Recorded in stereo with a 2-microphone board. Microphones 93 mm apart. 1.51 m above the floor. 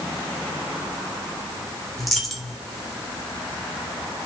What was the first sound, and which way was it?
A dropped coin, centre (ahead or behind).